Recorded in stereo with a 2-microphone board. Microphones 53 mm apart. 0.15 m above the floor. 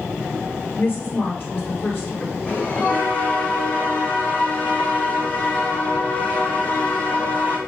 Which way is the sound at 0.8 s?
40° left (ahead or behind).